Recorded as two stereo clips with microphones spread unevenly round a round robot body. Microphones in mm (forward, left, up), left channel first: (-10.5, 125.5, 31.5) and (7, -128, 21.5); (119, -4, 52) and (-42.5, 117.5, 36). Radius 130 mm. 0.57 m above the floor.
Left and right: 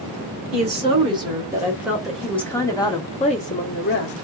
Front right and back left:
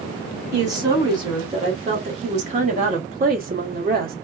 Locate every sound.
0.5 s a woman speaking: 145° right, 2.0 m; by 4.1 s 130° left, 1.5 m